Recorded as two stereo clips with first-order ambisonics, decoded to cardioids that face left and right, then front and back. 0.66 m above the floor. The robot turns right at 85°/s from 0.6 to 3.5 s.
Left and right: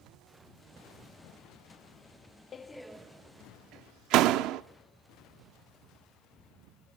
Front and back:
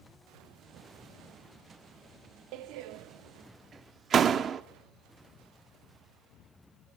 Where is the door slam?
155° left, 0.7 m; by 4.6 s 120° right, 0.7 m.